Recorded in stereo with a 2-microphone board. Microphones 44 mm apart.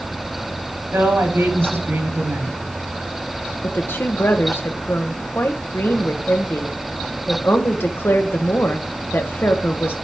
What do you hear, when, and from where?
0.9 s a woman speaking: 65° right (ahead or behind), 3 m
3.6 s a woman speaking: 55° left (ahead or behind), 1.1 m